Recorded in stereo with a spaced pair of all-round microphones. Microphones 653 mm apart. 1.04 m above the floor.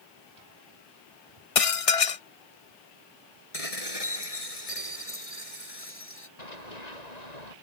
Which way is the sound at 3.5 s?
60° left (ahead or behind).